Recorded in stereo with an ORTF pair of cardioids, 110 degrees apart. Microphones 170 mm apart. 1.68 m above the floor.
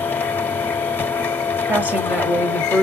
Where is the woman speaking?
10° right, 0.8 m.